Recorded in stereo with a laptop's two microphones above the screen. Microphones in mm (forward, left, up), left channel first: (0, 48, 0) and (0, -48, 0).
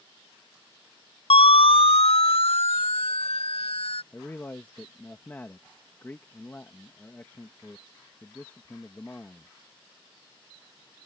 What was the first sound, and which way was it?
A siren, 80° left.